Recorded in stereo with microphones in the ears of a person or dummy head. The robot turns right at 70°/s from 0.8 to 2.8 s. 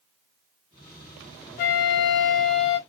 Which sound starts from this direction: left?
A flute, at 1.6 s.